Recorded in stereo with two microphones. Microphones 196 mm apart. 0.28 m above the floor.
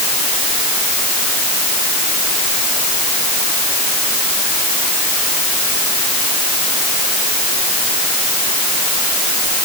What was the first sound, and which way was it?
Only background noise.